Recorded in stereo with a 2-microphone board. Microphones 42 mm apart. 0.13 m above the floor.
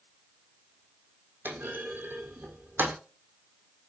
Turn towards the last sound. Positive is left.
turn(degrees=-60)  # may be behind; listen again after turning